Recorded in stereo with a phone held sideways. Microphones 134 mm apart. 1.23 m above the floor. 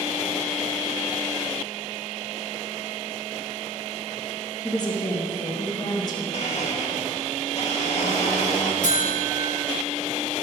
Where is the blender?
55° left (ahead or behind), 2.0 m.